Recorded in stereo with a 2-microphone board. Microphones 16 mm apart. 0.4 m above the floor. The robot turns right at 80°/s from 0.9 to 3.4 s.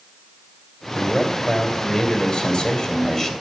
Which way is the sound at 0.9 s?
50° right.